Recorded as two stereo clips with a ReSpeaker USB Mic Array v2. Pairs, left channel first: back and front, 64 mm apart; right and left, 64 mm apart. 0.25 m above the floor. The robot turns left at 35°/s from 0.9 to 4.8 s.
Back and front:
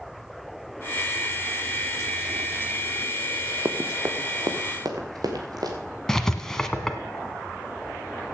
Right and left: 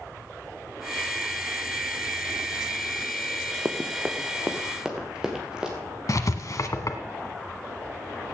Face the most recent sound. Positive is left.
turn(degrees=-100)